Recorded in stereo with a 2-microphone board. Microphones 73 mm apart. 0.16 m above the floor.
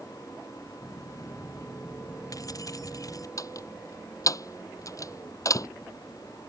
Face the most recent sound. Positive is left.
turn(degrees=50)  # may be behind; listen again after turning